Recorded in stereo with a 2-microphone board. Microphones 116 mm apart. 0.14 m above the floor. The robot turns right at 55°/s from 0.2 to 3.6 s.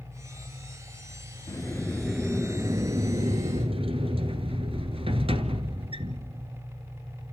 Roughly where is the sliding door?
Behind left.